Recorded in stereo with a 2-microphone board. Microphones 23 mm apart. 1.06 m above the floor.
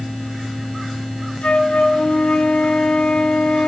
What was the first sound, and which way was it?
A flute, 70° left (ahead or behind).